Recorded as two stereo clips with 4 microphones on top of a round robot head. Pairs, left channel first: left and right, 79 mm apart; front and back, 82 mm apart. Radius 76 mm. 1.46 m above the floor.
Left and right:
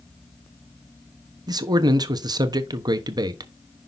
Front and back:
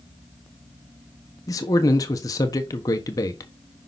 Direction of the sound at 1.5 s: 55° right.